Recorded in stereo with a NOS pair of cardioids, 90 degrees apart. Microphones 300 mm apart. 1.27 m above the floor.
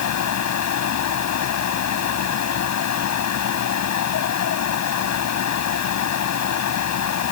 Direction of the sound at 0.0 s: 65° left.